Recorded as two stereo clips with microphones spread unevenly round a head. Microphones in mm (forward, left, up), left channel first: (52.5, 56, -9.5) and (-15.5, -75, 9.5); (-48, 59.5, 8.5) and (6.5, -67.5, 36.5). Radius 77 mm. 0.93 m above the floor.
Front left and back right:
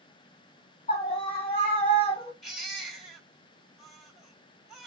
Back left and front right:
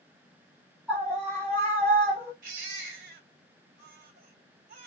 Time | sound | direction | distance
0.9 | a scream | 15° left | 1.8 m
2.4 | a baby crying | 30° right | 3 m